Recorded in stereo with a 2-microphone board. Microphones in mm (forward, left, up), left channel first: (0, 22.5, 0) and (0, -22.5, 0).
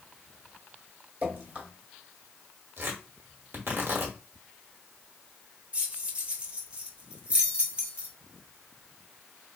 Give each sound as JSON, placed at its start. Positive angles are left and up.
{"t": 1.2, "sound": "dripping", "side_deg": -40, "distance_m": 1.3}
{"t": 2.8, "sound": "tearing paper", "side_deg": -55, "distance_m": 1.1}
{"t": 5.7, "sound": "keys jangling", "side_deg": -25, "distance_m": 0.7}